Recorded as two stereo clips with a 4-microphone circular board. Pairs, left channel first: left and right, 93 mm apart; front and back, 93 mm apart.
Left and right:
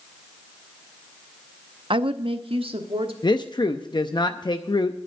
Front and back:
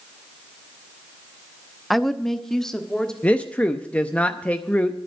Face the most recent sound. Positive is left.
turn(degrees=70)